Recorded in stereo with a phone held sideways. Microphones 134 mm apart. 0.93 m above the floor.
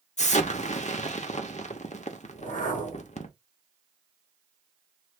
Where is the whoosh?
80° left, 1.9 m.